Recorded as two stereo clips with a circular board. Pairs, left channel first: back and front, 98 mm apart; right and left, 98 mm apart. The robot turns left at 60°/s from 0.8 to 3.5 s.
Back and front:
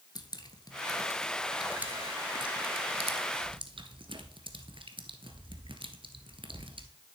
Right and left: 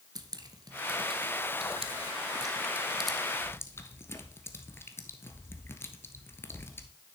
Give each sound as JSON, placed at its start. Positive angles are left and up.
{"t": 0.1, "sound": "dripping", "azimuth_deg": 135, "distance_m": 0.8}